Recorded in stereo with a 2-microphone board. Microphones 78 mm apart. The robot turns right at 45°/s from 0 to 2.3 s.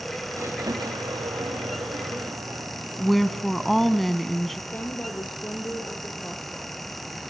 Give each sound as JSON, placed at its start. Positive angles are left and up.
{"t": 0.3, "sound": "a squeak", "azimuth_deg": -140, "distance_m": 6.0}
{"t": 3.0, "sound": "a woman speaking", "side_deg": 0, "distance_m": 1.3}
{"t": 4.7, "sound": "a woman speaking", "side_deg": 25, "distance_m": 5.0}